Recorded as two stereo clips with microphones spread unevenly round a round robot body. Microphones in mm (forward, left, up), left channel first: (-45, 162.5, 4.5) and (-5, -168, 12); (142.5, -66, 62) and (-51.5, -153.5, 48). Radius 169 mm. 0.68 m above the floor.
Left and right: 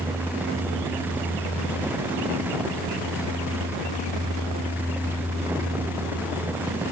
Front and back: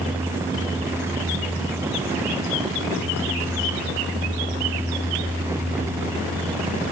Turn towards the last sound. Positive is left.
No sound to turn to.